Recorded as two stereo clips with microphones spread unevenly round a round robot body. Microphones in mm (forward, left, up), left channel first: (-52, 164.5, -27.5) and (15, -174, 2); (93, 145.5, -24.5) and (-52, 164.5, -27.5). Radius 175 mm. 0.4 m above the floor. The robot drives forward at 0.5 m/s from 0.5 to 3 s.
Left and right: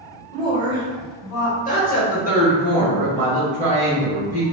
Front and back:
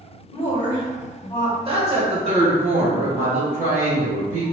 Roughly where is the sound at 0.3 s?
Ahead left.